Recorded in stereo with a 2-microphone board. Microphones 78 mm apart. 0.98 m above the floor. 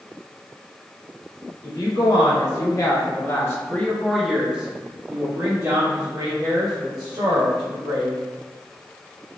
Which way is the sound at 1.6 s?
65° left (ahead or behind).